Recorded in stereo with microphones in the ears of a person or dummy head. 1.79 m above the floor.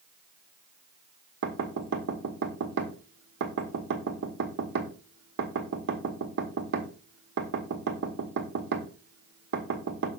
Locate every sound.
1.4 s knocking: 65° right (ahead or behind), 1.1 m